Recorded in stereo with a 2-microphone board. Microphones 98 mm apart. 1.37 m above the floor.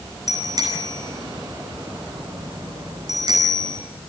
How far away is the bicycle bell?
About 9 m.